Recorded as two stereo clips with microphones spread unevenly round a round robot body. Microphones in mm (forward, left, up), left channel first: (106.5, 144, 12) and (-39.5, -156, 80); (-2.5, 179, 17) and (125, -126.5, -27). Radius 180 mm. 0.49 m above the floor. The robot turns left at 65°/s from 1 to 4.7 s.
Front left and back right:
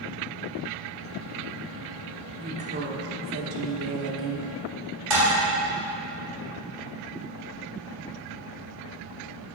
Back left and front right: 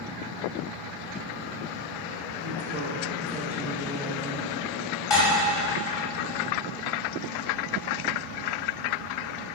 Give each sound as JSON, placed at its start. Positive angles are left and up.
{"t": 2.4, "sound": "a woman speaking", "azimuth_deg": -30, "distance_m": 1.0}
{"t": 5.1, "sound": "dishes clattering", "azimuth_deg": -165, "distance_m": 2.0}